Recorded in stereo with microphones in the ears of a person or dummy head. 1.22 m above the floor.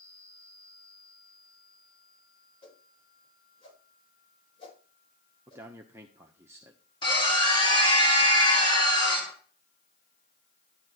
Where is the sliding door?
No sliding door in this recording.